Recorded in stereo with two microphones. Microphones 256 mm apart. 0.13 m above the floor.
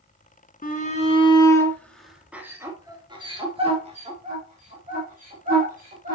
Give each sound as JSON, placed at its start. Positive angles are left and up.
{"t": 0.6, "sound": "a shout", "side_deg": 35, "distance_m": 1.4}